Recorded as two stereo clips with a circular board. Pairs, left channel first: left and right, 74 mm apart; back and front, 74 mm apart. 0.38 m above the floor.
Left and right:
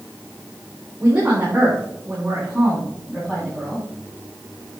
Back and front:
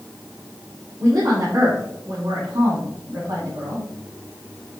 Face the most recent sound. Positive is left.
turn(degrees=15)